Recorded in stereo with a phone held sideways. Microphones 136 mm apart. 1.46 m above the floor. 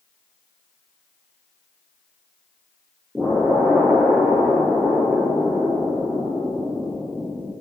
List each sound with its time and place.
3.1 s an explosion: 5° right (ahead or behind), 0.6 m